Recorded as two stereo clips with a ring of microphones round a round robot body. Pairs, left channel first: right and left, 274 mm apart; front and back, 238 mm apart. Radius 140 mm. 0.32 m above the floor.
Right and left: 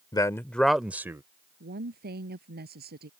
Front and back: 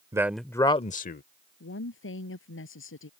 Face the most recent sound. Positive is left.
turn(degrees=35)